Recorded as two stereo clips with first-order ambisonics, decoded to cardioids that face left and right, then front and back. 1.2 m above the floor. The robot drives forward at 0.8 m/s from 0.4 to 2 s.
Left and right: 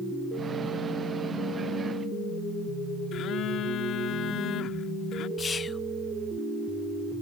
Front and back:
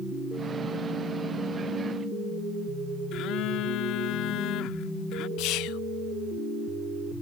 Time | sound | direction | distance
3.1 | a phone buzzing | 40° left | ?
5.4 | whispering | 25° left | ?